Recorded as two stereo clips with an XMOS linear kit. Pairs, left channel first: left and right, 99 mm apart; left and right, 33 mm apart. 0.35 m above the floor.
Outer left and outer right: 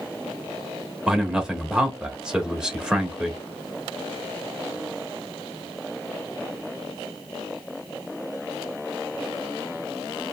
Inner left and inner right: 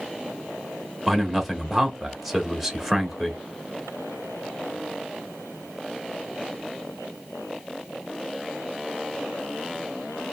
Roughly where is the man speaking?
Centre.